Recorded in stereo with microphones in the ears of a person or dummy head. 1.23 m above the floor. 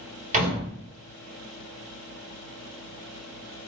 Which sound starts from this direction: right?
A door slam, at 0.3 s.